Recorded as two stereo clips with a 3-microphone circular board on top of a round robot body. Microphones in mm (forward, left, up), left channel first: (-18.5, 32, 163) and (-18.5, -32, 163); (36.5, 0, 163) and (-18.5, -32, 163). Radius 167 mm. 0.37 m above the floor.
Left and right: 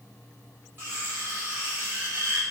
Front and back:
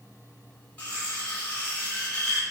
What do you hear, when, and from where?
0.8 s cutlery clinking: 35° right, 1.6 m